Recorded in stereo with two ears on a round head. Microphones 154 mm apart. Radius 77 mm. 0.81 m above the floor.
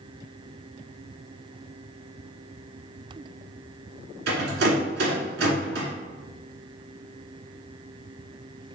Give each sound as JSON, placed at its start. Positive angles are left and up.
{"t": 4.3, "sound": "a rattle", "side_deg": -65, "distance_m": 1.5}